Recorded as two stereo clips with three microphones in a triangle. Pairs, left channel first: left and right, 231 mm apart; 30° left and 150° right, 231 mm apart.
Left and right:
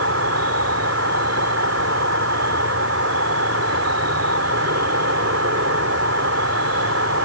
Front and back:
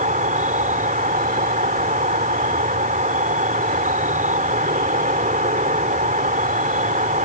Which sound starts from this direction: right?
An insect, at 0.0 s.